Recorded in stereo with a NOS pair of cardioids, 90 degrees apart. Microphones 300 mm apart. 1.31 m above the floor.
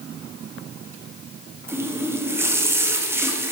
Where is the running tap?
10° right, 1.2 m.